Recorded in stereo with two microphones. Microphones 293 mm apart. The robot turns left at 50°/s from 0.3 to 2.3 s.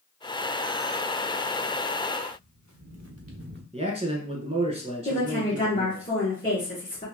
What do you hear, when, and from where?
2.3 s footsteps: 80° right, 1.5 m; by 3.6 s 35° right (ahead or behind), 0.9 m
3.7 s a man speaking: 20° right (ahead or behind), 1.2 m
5.0 s a woman speaking: 30° left (ahead or behind), 2 m